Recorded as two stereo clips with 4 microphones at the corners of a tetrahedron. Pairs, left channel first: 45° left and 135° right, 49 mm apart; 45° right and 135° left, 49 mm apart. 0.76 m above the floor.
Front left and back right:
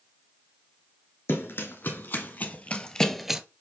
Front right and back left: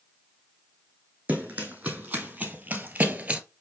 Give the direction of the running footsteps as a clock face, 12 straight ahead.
10 o'clock.